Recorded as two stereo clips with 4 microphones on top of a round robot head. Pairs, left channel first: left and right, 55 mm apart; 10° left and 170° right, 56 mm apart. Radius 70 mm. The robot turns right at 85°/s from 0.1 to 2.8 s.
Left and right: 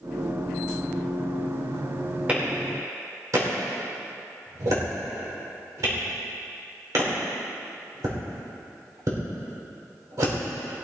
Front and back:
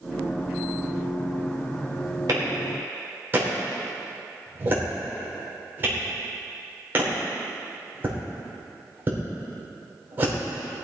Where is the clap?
160° right, 3.5 m; by 10.3 s 115° right, 3.5 m.